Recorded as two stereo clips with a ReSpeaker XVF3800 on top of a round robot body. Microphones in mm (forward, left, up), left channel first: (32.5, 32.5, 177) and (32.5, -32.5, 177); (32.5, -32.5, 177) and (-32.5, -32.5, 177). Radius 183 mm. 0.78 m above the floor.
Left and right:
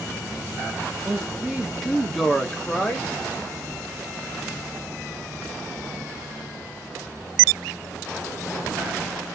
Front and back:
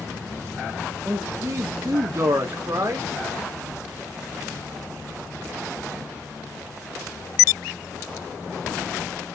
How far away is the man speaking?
About 1.3 m.